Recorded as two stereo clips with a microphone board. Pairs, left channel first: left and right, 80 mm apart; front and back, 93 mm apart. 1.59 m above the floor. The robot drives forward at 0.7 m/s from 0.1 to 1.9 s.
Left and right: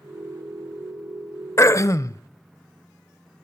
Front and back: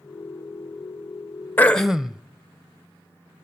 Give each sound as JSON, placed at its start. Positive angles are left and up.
{"t": 1.6, "sound": "throat clearing", "azimuth_deg": 60, "distance_m": 0.6}